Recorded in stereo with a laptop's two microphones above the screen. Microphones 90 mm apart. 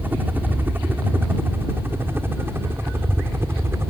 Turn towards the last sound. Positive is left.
turn(degrees=-25)  # may be behind; listen again after turning